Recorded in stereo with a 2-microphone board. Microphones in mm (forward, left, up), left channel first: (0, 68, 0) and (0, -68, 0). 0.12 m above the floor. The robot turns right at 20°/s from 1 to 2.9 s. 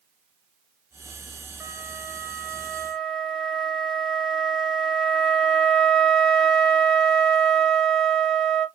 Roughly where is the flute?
Centre.